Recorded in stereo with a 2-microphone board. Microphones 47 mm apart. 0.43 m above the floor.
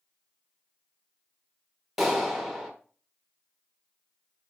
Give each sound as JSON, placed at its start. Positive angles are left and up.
{"t": 2.0, "sound": "a clap", "side_deg": 0, "distance_m": 1.3}